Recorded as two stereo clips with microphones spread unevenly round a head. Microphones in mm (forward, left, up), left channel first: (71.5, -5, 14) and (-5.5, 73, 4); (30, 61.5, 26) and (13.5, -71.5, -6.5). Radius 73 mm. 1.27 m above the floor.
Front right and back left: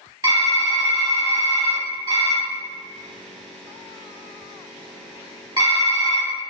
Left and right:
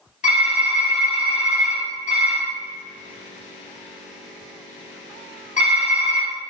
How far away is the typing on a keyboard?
About 1.9 m.